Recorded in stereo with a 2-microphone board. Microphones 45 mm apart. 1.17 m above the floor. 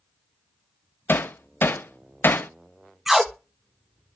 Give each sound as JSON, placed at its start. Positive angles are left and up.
{"t": 1.1, "sound": "hammering", "side_deg": 55, "distance_m": 0.6}
{"t": 3.1, "sound": "tape being pulled", "side_deg": -10, "distance_m": 0.8}